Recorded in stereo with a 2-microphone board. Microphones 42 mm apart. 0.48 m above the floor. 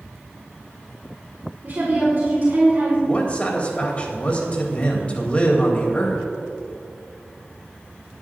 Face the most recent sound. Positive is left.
turn(degrees=30)  # may be behind; listen again after turning